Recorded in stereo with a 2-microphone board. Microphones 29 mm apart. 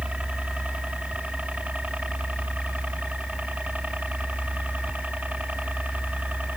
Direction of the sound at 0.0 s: 50° right (ahead or behind).